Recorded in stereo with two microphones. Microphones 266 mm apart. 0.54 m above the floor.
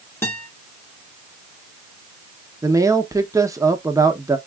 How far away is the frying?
No frying in this recording.